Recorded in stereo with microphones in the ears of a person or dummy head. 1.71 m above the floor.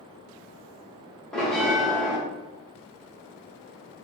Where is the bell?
5° left (ahead or behind), 0.6 m.